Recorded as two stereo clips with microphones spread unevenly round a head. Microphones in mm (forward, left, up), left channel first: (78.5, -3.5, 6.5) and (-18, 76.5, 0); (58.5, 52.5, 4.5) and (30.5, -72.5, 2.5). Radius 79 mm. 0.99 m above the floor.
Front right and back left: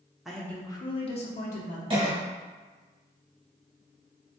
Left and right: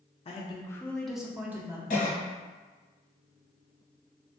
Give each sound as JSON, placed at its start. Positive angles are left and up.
{"t": 0.2, "sound": "a woman speaking", "azimuth_deg": 55, "distance_m": 0.6}
{"t": 1.9, "sound": "a cough", "azimuth_deg": 100, "distance_m": 1.2}